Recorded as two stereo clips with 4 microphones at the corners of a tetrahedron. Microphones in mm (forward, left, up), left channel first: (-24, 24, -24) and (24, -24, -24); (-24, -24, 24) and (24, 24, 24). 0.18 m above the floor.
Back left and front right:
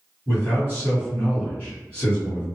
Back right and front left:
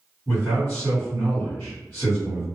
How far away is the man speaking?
About 1.7 m.